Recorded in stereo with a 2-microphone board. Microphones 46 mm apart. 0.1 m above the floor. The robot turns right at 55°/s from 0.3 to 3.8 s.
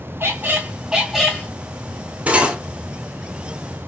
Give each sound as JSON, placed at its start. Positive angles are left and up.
{"t": 0.2, "sound": "a squeak", "azimuth_deg": -45, "distance_m": 1.1}
{"t": 2.3, "sound": "cutlery clinking", "side_deg": -35, "distance_m": 1.5}